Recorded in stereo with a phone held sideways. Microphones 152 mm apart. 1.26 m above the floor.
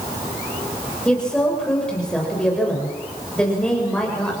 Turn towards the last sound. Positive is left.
turn(degrees=5)  # may be behind; listen again after turning